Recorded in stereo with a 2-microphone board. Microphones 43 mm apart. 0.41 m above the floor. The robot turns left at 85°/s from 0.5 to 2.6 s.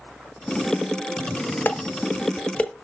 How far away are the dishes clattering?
About 1.0 m.